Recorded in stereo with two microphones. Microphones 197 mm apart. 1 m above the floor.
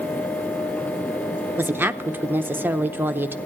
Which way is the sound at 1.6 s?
10° right (ahead or behind).